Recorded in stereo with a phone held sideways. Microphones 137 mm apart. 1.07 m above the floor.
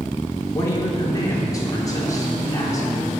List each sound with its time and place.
0.6 s a woman speaking: 25° left (ahead or behind), 3.5 m